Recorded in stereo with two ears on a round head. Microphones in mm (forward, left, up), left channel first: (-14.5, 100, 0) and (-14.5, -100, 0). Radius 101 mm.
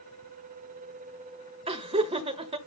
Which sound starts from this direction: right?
Laughter, at 1.7 s.